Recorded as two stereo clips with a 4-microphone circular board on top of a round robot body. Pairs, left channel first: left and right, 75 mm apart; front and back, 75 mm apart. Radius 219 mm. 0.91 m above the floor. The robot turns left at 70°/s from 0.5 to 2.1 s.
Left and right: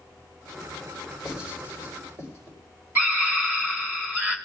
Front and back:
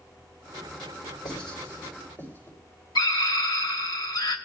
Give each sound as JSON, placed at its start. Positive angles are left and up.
{"t": 1.2, "sound": "writing", "azimuth_deg": 0, "distance_m": 4.0}
{"t": 3.0, "sound": "a scream", "azimuth_deg": -25, "distance_m": 2.5}